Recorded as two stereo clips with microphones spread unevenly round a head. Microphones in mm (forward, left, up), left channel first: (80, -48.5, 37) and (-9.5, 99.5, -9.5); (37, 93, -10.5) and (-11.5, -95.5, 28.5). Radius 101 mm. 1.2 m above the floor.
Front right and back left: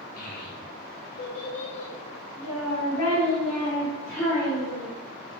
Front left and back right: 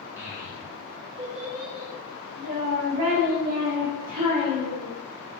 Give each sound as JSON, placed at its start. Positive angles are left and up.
{"t": 0.2, "sound": "a child speaking", "azimuth_deg": -25, "distance_m": 1.4}